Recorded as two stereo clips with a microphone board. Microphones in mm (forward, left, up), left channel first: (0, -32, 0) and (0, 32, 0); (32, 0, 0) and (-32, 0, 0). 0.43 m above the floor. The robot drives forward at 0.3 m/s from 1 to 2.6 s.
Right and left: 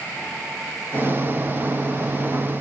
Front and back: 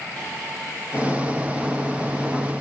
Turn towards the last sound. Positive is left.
No sound to turn to.